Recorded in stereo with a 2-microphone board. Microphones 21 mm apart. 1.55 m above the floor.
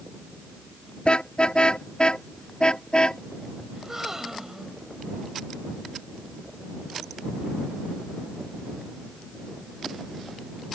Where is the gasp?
20° right (ahead or behind).